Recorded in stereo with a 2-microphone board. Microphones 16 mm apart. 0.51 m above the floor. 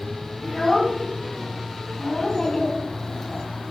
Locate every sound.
0.4 s a child speaking: 45° left (ahead or behind), 2.5 m
2.2 s a child speaking: 55° left (ahead or behind), 2 m